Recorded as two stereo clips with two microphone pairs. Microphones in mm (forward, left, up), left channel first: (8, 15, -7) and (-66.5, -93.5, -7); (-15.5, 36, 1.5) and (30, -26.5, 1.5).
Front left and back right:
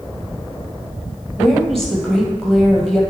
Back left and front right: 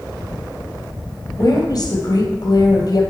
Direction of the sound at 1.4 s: 145° left.